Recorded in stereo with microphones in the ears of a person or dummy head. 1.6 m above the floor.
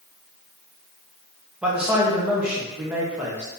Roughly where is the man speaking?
Centre.